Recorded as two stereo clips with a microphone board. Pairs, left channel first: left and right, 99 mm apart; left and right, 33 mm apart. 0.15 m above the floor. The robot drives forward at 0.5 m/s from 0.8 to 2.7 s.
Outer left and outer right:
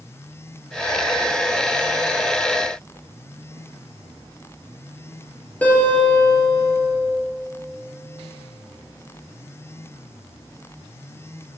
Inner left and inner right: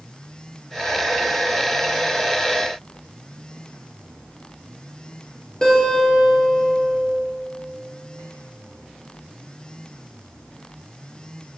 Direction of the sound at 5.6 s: 15° left (ahead or behind).